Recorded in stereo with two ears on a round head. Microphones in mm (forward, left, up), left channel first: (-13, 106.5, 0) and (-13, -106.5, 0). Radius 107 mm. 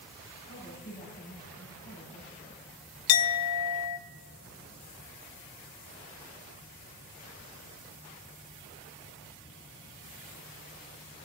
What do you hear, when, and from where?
0.5 s a woman speaking: 30° left (ahead or behind), 6.5 m
3.1 s a clink: 70° left (ahead or behind), 0.6 m